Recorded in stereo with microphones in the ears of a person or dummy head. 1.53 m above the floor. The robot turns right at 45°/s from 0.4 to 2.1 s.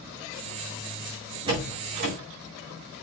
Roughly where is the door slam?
Right.